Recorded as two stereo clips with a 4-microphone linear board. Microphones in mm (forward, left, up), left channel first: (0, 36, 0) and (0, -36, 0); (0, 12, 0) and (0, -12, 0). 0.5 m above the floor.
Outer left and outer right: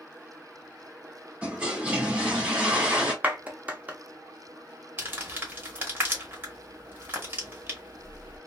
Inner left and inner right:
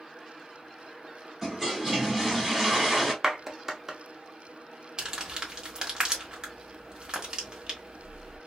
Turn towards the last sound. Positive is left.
turn(degrees=-30)  # may be behind; listen again after turning